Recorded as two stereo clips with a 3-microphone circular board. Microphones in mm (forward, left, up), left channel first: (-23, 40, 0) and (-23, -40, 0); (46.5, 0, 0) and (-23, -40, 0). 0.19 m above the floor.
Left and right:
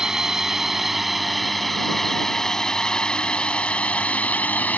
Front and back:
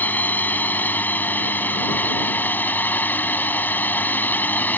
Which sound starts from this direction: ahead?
A drone, at 0.0 s.